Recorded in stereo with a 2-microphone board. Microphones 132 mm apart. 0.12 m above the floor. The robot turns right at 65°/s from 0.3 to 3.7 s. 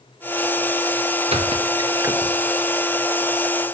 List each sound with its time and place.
1.3 s a squeak: 50° right (ahead or behind), 1.0 m; by 2.4 s 5° right (ahead or behind), 1.0 m